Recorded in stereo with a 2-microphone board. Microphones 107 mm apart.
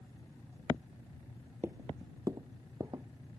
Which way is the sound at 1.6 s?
20° right (ahead or behind).